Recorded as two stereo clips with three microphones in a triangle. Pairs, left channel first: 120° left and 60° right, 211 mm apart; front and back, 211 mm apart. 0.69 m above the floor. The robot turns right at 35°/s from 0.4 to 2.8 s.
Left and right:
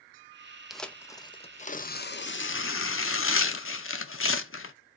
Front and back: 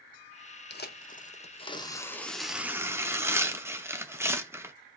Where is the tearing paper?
30° left, 0.5 m; by 4.8 s 100° left, 0.5 m.